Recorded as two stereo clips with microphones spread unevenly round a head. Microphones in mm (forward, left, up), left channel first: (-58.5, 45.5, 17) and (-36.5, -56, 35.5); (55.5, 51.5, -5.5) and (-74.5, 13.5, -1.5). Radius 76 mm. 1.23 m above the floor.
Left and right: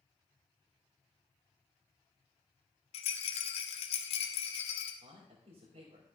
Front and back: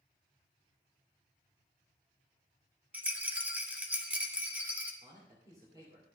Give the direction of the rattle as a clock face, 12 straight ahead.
8 o'clock.